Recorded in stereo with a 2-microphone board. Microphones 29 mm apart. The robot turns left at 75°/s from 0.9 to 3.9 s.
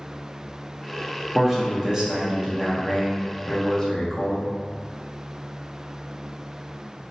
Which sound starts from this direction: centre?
A man speaking, at 1.4 s.